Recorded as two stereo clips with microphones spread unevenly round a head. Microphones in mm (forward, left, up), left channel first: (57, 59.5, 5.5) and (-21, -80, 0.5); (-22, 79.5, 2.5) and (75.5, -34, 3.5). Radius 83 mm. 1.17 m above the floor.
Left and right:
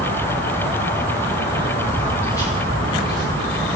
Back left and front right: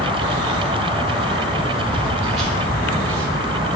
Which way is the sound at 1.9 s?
15° right.